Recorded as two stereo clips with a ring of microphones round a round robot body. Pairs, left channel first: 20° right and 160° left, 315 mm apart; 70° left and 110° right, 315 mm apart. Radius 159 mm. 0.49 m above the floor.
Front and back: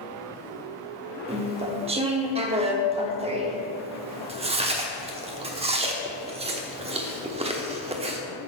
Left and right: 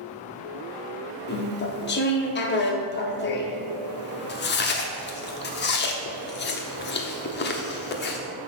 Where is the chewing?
100° left, 1.0 m.